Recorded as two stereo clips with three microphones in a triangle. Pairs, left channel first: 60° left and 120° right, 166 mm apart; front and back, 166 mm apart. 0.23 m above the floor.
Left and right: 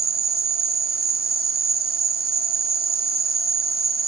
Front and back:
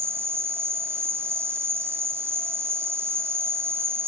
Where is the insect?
105° right, 1.4 m.